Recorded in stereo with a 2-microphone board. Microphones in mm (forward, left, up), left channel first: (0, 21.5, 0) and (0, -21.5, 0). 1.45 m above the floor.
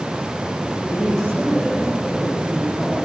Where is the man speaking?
10° left (ahead or behind), 8.5 m.